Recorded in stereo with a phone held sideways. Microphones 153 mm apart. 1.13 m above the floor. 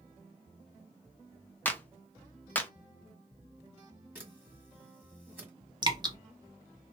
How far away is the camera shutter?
About 1.6 m.